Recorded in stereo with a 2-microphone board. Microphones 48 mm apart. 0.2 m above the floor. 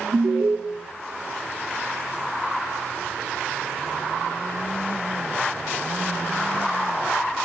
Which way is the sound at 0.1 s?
60° right (ahead or behind).